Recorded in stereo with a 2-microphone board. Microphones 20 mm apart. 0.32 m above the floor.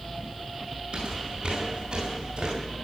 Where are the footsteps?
55° right (ahead or behind), 8 m; by 2.5 s 60° right (ahead or behind), 8.5 m.